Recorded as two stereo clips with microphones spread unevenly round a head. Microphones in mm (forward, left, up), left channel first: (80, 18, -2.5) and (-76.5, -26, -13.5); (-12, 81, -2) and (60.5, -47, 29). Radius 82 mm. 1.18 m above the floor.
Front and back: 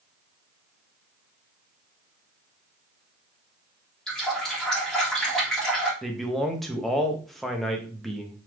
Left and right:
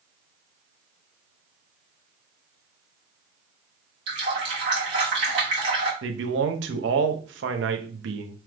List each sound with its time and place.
4.1 s a running tap: 70° right, 1.6 m
6.0 s a man speaking: 75° right, 0.6 m